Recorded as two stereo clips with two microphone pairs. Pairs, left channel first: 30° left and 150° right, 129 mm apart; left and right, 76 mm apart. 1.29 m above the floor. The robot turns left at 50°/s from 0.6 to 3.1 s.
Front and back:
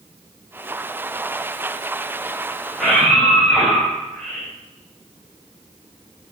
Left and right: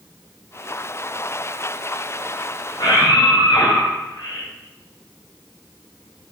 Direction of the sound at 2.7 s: 130° left.